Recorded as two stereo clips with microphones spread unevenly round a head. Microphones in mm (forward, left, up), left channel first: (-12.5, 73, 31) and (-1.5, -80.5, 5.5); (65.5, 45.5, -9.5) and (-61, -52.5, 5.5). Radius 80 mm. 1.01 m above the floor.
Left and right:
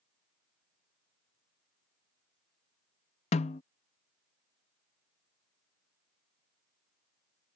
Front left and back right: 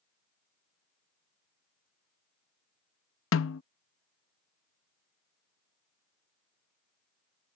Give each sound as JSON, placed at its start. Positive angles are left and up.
{"t": 3.3, "sound": "a snare drum", "azimuth_deg": 45}